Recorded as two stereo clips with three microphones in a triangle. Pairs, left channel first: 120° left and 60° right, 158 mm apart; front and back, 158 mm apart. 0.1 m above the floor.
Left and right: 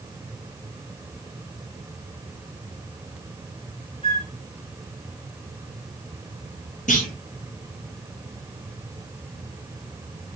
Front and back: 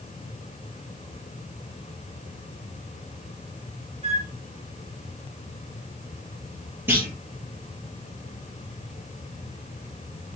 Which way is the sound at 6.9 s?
105° left.